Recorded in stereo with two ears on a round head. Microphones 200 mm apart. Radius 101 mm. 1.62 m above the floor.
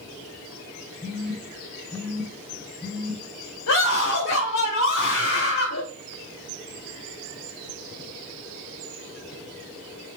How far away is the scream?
About 2 m.